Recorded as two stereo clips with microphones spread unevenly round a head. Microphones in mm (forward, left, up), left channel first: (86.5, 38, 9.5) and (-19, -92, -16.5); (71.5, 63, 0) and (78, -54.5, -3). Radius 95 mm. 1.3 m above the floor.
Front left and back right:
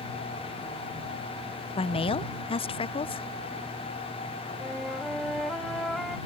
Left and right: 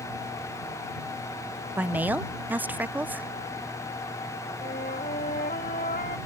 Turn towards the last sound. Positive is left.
turn(degrees=140)